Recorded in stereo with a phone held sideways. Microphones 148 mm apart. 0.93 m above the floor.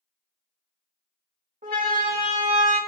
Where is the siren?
80° right, 4.5 m; by 2.8 s 85° right, 4.5 m.